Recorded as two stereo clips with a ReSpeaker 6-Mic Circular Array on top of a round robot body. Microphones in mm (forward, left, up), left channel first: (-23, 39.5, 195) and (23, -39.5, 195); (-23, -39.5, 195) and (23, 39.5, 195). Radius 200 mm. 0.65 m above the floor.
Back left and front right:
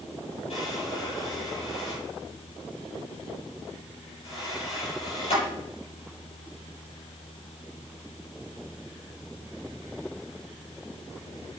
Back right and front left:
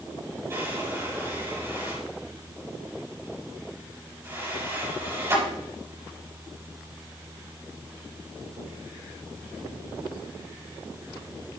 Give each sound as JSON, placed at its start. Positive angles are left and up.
{"t": 0.5, "sound": "a drawer", "azimuth_deg": 125, "distance_m": 7.5}